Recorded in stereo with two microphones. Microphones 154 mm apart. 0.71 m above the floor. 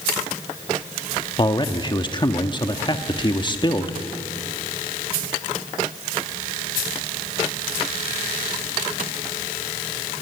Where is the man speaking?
30° left (ahead or behind), 1.2 m.